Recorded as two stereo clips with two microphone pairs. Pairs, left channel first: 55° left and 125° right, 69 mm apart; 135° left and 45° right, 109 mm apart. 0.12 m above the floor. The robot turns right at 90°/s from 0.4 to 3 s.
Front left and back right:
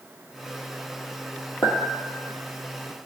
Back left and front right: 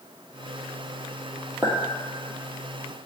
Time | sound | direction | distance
1.6 | a clink | 35° left | 1.9 m